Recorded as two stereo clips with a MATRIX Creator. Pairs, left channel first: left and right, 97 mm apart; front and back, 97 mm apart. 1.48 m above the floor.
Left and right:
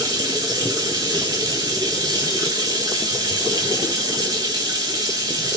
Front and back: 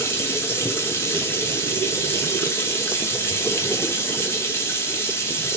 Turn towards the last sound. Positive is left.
turn(degrees=-60)